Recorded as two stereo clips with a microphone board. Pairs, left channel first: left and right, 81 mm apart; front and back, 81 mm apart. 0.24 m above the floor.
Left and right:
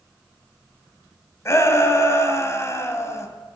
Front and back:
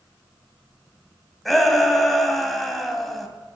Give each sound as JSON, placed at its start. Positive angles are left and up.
{"t": 1.4, "sound": "a shout", "azimuth_deg": 85, "distance_m": 1.6}